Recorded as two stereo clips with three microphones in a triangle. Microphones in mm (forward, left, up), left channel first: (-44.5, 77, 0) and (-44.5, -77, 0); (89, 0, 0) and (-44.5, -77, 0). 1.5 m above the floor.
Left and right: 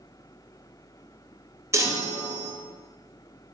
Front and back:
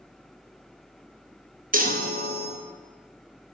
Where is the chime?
160° right, 0.5 m.